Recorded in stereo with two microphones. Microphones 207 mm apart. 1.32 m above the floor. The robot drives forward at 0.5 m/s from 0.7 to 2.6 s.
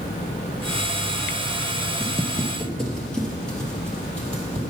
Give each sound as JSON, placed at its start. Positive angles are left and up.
{"t": 2.0, "sound": "footsteps", "side_deg": 0, "distance_m": 1.3}